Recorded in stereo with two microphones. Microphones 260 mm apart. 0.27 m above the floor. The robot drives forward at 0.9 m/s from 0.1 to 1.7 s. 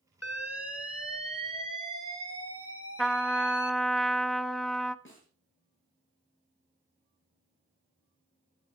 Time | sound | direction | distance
0.2 | an alarm | 70° left (ahead or behind) | 2.0 m
3.0 | a trumpet | centre (ahead or behind) | 0.6 m
5.0 | a snare drum | 50° left (ahead or behind) | 6.5 m